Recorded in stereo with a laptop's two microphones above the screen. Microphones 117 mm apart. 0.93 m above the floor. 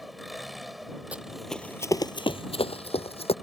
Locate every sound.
0.0 s an engine running: centre (ahead or behind)
1.1 s running footsteps: 10° right (ahead or behind); by 3.3 s 55° left (ahead or behind)